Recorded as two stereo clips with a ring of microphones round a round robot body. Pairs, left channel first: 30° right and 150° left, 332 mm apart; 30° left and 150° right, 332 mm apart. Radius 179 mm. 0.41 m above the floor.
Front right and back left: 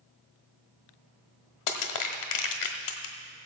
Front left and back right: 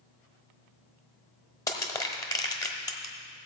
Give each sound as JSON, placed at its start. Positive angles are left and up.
{"t": 1.7, "sound": "crushing", "azimuth_deg": -50, "distance_m": 1.1}